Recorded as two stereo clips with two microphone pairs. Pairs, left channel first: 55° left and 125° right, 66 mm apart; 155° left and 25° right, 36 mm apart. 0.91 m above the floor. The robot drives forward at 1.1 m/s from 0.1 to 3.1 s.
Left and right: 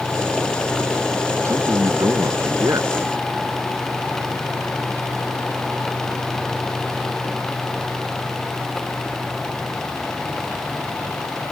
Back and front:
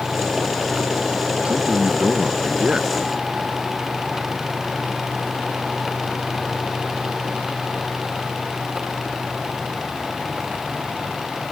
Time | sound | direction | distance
1.4 | a man speaking | 80° right | ?